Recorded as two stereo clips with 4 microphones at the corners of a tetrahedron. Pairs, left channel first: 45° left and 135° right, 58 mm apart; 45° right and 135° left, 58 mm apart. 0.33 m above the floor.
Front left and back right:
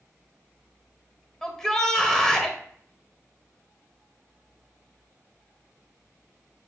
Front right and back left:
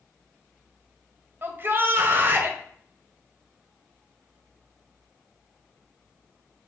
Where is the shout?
125° left, 1.4 m.